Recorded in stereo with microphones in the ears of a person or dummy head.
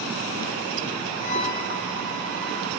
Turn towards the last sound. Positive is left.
turn(degrees=35)  # may be behind; listen again after turning